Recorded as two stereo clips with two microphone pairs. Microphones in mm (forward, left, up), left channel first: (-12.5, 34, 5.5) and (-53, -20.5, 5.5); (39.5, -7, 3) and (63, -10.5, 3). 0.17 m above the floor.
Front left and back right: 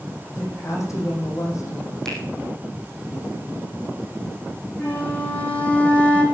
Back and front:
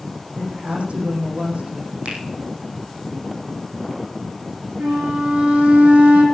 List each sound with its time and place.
0.4 s a woman speaking: 10° left, 7.5 m
2.0 s a finger snap: 30° right, 5 m
4.8 s a flute: 15° right, 2.5 m